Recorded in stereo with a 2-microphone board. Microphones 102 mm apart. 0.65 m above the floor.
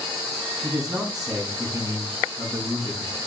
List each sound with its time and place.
0.6 s a man speaking: 35° right (ahead or behind), 4.5 m